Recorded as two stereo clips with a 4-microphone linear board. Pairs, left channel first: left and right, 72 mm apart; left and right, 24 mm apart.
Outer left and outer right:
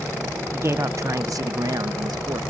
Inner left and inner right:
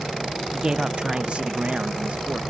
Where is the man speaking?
30° right (ahead or behind); by 2.4 s 65° right (ahead or behind).